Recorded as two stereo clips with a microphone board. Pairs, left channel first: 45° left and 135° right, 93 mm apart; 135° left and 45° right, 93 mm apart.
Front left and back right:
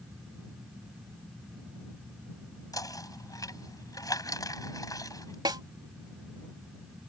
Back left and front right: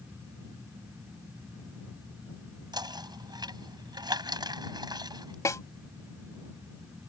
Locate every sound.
2.7 s knocking: 5° right
5.5 s a snare drum: 175° right